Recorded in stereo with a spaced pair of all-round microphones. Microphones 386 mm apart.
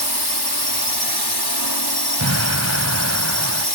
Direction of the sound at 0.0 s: 80° left.